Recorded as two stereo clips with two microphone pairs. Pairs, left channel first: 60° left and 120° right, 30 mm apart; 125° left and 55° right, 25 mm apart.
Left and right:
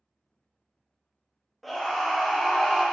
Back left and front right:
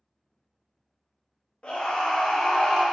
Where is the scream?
145° left, 0.9 m.